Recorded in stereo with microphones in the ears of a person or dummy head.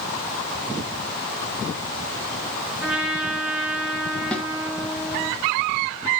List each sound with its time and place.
2.8 s a trumpet: 5° right (ahead or behind), 2.5 m
4.3 s a snare drum: 5° left (ahead or behind), 2.5 m